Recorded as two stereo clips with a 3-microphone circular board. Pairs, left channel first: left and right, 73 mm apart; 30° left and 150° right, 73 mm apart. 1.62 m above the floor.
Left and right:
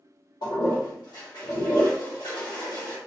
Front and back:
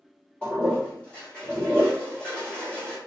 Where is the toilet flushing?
105° left, 1.6 m.